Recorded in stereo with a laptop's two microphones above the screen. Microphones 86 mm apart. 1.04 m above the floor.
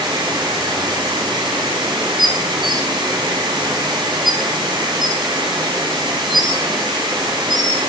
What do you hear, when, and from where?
0.0 s running water: 60° right (ahead or behind), 9.5 m
2.2 s dishes clattering: 5° right (ahead or behind), 6.5 m